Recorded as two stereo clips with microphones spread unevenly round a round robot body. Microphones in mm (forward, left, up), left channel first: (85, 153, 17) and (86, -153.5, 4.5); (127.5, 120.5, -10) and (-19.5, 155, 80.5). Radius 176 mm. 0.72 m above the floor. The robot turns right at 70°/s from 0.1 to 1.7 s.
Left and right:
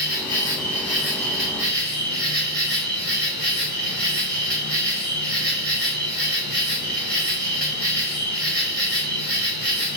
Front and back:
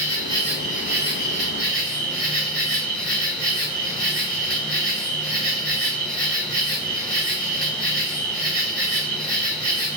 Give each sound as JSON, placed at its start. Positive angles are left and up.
{"t": 0.0, "sound": "an insect", "azimuth_deg": 90, "distance_m": 2.5}